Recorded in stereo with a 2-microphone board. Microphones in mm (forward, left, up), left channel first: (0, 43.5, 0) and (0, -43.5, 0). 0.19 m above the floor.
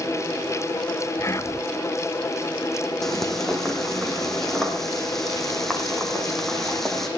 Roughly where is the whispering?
Left.